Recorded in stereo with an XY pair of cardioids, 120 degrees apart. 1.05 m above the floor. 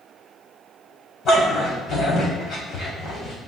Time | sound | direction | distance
1.2 | a dog barking | 55° left | 3 m